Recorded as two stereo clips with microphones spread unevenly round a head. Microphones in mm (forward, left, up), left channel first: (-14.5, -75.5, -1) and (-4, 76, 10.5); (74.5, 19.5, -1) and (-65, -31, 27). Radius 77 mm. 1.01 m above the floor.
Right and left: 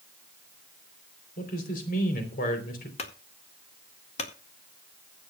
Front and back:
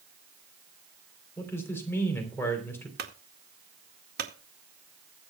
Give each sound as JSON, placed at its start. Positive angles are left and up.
{"t": 1.4, "sound": "a man speaking", "azimuth_deg": -55, "distance_m": 4.0}
{"t": 3.0, "sound": "a clunk", "azimuth_deg": -135, "distance_m": 2.0}